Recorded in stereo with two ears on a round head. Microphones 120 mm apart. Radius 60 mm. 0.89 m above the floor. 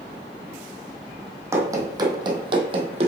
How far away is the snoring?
No snoring in this recording.